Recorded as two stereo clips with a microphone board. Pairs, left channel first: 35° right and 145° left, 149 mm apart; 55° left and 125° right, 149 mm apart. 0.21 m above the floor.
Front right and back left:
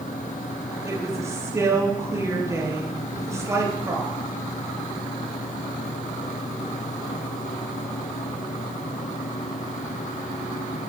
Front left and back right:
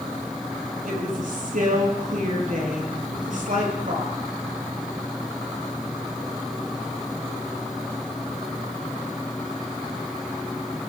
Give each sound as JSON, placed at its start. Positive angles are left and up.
{"t": 0.8, "sound": "a woman speaking", "azimuth_deg": -145, "distance_m": 5.0}